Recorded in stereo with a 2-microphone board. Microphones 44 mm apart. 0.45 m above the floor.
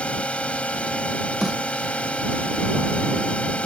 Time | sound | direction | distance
0.0 | a drone | 30° left (ahead or behind) | ?
1.4 | a snare drum | 10° right (ahead or behind) | ?